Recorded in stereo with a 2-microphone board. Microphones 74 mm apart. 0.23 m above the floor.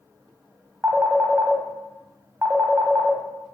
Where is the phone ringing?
20° right (ahead or behind), 0.6 m.